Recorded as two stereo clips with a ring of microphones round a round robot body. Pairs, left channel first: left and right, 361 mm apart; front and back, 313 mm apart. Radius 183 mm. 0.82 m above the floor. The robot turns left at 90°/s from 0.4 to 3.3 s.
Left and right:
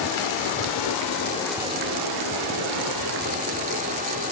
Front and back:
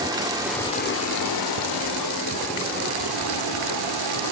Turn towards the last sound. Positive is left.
turn(degrees=-160)